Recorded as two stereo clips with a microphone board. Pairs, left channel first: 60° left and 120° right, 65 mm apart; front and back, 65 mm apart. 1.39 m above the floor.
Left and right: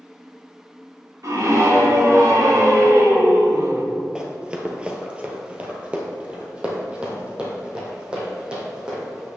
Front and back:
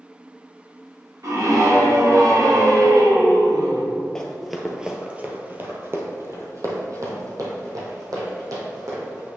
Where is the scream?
150° right, 3 m; by 3.9 s 165° right, 1.4 m.